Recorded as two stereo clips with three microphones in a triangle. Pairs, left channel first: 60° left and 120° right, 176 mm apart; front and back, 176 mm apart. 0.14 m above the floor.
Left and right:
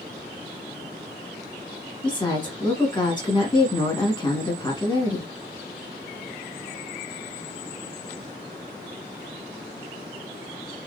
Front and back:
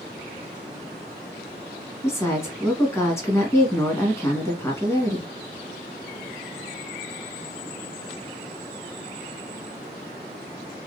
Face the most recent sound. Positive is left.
turn(degrees=55)